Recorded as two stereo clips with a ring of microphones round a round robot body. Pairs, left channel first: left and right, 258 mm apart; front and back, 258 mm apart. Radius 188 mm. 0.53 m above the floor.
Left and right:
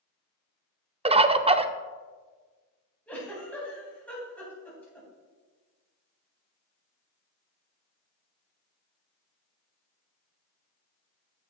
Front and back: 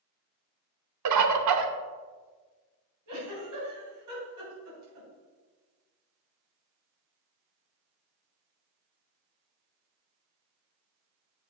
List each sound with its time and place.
1.1 s a bird: 160° right, 0.6 m
3.1 s a giggle: 175° left, 3.5 m